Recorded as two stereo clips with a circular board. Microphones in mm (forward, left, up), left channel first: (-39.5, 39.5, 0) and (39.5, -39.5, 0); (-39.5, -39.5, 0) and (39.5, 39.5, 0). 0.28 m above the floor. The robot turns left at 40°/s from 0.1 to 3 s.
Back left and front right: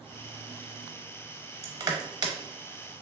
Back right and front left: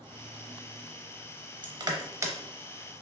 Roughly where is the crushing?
Ahead.